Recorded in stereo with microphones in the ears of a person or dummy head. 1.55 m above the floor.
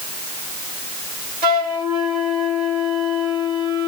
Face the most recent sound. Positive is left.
turn(degrees=-55)  # may be behind; listen again after turning